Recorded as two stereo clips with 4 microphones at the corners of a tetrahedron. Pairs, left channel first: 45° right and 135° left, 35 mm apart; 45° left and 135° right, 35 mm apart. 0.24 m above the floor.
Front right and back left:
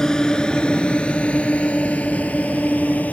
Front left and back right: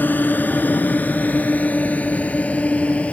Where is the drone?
25° left; by 3.1 s 5° right.